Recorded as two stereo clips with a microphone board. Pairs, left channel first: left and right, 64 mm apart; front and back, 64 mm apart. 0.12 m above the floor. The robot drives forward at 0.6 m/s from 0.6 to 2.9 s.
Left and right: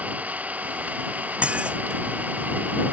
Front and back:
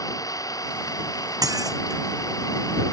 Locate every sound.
0.0 s an engine running: 25° right
1.4 s dishes clattering: 160° right; by 2.0 s 165° right